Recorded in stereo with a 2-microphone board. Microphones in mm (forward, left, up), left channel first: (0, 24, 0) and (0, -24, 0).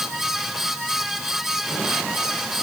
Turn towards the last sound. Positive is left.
No sound to turn to.